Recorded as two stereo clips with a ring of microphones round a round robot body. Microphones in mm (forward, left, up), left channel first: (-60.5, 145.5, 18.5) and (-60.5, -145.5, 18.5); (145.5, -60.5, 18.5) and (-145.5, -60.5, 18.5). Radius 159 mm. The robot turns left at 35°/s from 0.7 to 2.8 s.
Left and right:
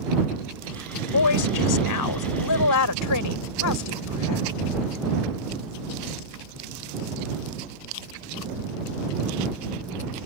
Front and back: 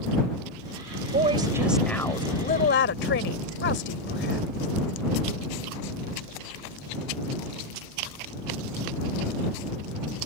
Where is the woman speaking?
115° left; by 4.5 s 55° left.